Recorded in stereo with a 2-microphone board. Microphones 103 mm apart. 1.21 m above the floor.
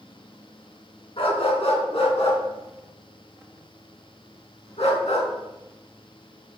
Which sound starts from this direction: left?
A dog barking, at 1.2 s.